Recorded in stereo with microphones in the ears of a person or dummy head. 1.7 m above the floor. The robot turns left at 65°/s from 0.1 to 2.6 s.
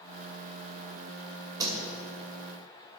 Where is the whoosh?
15° right (ahead or behind), 2 m; by 1.7 s 20° right (ahead or behind), 2 m.